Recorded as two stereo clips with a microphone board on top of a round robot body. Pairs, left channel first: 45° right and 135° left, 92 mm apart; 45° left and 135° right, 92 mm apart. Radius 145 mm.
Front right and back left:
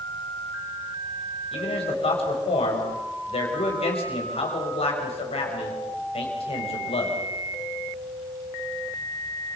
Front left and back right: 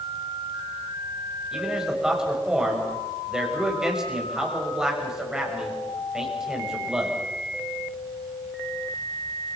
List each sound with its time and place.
1.5 s a man speaking: 50° right, 6.5 m